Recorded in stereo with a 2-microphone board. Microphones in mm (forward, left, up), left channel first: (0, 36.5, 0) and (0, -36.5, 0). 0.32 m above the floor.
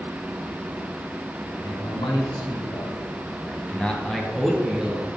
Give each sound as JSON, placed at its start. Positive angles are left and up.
{"t": 1.4, "sound": "a man speaking", "side_deg": 70, "distance_m": 3.0}